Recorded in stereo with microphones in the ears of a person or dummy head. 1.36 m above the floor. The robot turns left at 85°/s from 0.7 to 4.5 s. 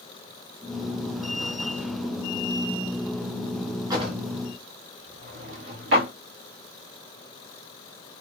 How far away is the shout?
I don't hear a shout.